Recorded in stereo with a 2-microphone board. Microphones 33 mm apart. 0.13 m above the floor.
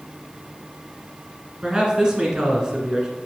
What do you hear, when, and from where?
1.6 s a man speaking: 25° right (ahead or behind), 1.5 m